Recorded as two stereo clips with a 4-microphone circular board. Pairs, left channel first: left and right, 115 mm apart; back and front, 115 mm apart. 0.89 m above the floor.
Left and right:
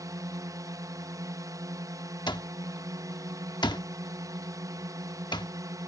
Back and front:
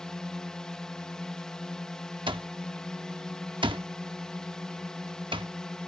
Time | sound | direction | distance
0.0 | a drone | 100° right | ?
2.3 | an alarm clock | 40° left | ?